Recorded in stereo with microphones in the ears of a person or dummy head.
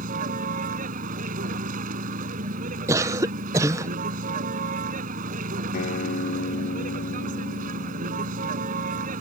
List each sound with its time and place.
0.0 s a vehicle: 45° right (ahead or behind)
2.9 s a cough: 15° right (ahead or behind)
5.7 s a guitar: 50° left (ahead or behind)